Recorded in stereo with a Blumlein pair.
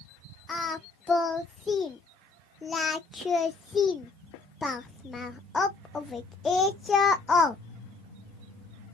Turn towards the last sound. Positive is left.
turn(degrees=15)